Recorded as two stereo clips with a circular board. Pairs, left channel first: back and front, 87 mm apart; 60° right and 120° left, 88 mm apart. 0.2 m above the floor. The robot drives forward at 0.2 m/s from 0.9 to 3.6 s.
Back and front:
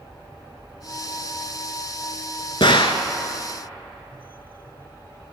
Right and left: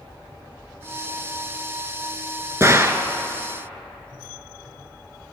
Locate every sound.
2.6 s a gunshot: 175° left, 0.7 m